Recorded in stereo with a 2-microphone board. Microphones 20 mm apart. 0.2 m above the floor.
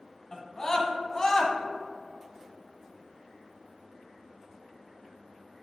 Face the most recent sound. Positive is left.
turn(degrees=35)  # may be behind; listen again after turning